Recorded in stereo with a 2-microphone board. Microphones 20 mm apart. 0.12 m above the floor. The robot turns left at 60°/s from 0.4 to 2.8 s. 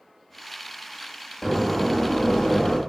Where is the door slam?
175° left, 4 m; by 2.8 s 90° left, 4 m.